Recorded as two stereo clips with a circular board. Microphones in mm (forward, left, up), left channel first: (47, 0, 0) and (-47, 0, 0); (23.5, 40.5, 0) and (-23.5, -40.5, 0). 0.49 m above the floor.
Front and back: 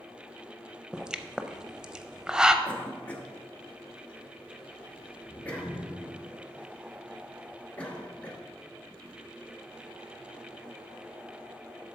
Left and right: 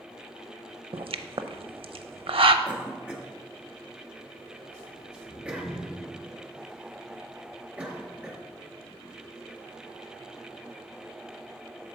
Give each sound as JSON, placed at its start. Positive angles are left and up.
{"t": 0.9, "sound": "a pop", "azimuth_deg": -100, "distance_m": 0.5}
{"t": 2.6, "sound": "a cough", "azimuth_deg": -60, "distance_m": 1.0}